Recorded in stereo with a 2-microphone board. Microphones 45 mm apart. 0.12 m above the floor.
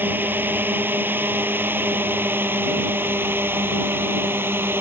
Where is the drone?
45° right (ahead or behind); by 4.8 s 55° right (ahead or behind).